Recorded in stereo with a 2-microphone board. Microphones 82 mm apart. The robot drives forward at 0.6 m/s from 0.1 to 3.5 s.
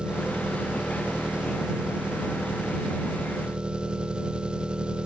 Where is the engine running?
10° right (ahead or behind).